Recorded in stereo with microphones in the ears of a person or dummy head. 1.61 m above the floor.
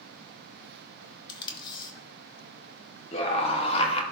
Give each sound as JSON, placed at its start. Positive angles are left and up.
{"t": 1.3, "sound": "tape being pulled", "side_deg": 25, "distance_m": 1.0}
{"t": 3.1, "sound": "a scream", "side_deg": 35, "distance_m": 1.0}